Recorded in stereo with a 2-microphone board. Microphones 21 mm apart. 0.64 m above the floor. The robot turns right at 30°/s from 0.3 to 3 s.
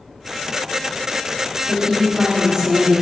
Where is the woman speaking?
60° right, 2 m; by 3.0 s 20° right, 2 m.